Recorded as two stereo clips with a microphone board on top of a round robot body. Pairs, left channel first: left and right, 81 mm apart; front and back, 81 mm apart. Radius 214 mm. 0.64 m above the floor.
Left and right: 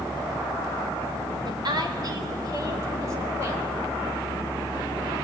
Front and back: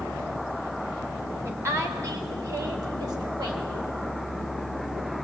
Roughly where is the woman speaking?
Behind right.